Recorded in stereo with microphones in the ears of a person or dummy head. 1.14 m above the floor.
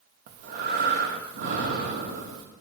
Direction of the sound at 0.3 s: 60° right (ahead or behind).